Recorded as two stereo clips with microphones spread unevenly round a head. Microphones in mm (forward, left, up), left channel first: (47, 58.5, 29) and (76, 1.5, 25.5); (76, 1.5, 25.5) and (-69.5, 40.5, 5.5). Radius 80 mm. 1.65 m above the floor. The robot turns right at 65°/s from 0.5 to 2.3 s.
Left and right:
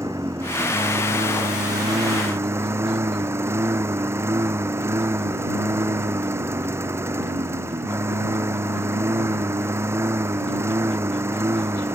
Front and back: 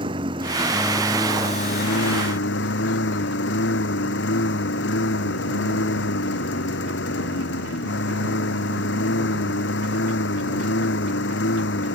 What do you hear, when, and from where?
0.0 s a lawn mower: 130° right; by 11.9 s 15° right